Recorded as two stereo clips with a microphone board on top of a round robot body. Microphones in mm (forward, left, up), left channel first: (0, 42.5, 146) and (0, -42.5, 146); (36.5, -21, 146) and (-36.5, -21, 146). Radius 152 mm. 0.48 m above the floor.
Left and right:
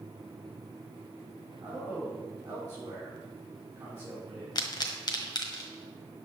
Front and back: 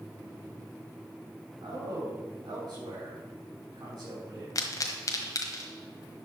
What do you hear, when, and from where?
1.6 s a man speaking: 160° right, 5.5 m
4.5 s a pop: 50° left, 1.5 m